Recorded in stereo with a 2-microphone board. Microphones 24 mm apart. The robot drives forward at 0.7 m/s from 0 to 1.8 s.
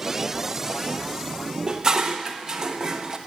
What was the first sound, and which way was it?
Dishes clattering, 30° right (ahead or behind).